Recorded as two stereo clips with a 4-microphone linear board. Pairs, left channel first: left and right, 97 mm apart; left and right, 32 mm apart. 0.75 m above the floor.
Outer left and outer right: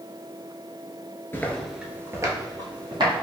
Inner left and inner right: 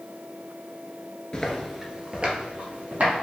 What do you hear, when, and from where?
1.3 s footsteps: 25° left (ahead or behind), 0.7 m; by 3.2 s 50° right (ahead or behind), 1.7 m